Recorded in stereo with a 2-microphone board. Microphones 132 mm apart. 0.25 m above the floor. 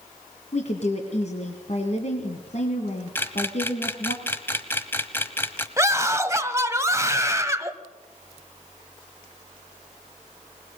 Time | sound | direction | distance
0.5 | a woman speaking | 55° left (ahead or behind) | 2.0 m
3.1 | a camera shutter | 15° left (ahead or behind) | 1.2 m
5.8 | a scream | 20° right (ahead or behind) | 1.1 m